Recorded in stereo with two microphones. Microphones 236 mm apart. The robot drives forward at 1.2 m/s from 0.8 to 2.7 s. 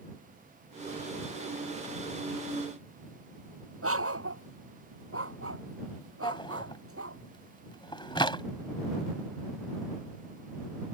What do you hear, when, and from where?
3.8 s a dog barking: 70° right (ahead or behind)
6.2 s a drawer: 20° left (ahead or behind)